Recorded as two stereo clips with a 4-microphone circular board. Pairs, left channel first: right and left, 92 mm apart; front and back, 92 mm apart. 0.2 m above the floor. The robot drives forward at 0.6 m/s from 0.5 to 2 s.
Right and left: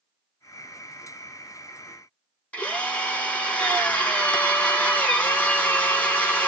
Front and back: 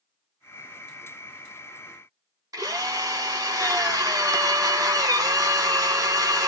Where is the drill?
160° right, 1.8 m.